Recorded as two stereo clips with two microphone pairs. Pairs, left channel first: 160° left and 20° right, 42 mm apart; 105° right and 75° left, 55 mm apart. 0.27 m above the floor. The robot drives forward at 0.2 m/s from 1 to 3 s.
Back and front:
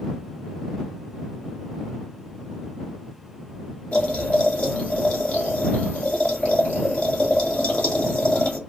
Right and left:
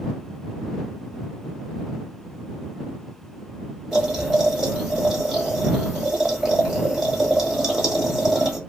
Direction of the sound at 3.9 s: 155° left.